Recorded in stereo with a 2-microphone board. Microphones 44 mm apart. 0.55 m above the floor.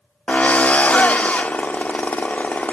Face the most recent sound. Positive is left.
turn(degrees=35)  # may be behind; listen again after turning